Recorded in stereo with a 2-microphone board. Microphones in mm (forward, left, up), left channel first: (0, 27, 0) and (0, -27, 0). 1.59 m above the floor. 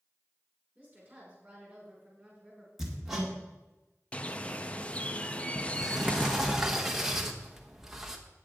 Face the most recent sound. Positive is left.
turn(degrees=-5)  # may be behind; listen again after turning